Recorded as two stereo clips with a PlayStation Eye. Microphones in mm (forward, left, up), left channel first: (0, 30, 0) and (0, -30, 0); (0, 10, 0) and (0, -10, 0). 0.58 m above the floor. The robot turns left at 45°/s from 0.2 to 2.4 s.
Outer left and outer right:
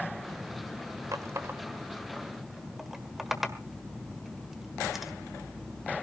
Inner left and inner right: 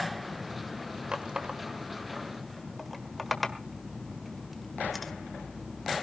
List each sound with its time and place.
1.1 s a running tap: 60° right (ahead or behind), 1.3 m; by 5.1 s 5° right (ahead or behind), 1.3 m